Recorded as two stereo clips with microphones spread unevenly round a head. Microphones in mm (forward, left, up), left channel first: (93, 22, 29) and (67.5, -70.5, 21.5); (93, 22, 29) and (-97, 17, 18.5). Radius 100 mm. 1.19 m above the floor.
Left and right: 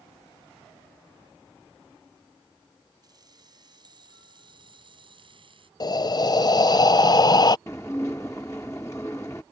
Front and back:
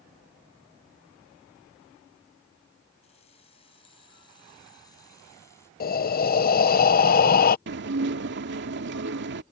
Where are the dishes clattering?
150° left.